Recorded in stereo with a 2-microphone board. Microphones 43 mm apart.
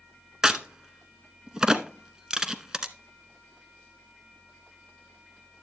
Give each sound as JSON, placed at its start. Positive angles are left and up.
{"t": 0.4, "sound": "a crack", "side_deg": -15, "distance_m": 0.8}